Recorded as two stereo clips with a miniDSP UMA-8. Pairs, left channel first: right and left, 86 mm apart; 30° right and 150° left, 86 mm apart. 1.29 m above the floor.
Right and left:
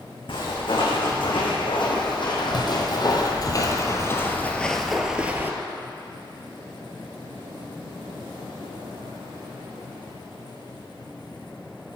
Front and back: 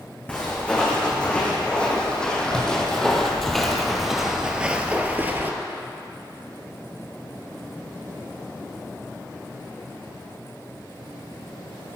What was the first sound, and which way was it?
Footsteps, 105° right.